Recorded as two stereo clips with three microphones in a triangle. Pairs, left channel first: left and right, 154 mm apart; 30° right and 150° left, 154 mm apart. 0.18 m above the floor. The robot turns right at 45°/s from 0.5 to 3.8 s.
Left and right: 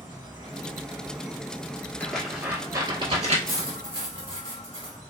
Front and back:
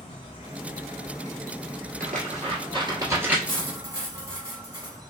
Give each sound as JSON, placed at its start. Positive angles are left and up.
{"t": 0.0, "sound": "an insect", "azimuth_deg": -45, "distance_m": 1.1}
{"t": 2.0, "sound": "tearing paper", "azimuth_deg": 170, "distance_m": 1.3}
{"t": 3.5, "sound": "cutlery clinking", "azimuth_deg": -160, "distance_m": 2.0}